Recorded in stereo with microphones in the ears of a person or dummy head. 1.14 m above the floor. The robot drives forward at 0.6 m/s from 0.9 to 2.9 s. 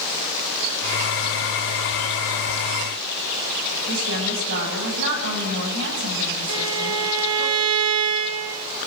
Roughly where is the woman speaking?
Right.